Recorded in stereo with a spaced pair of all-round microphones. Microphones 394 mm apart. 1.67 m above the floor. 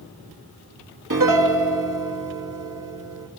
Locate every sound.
1.1 s a piano: 50° right (ahead or behind), 2 m